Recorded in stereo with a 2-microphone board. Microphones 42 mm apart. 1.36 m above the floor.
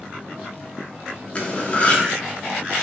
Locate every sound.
1.4 s cutlery clinking: 30° left (ahead or behind), 0.7 m